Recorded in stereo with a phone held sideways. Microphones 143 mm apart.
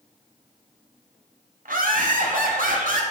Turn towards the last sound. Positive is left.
turn(degrees=-75)  # may be behind; listen again after turning